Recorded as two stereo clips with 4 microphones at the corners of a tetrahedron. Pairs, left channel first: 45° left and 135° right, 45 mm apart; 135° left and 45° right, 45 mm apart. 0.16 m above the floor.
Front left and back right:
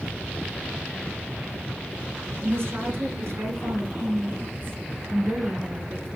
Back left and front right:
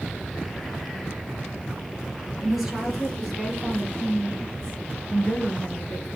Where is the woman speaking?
130° right, 3 m; by 6.1 s 175° left, 2 m.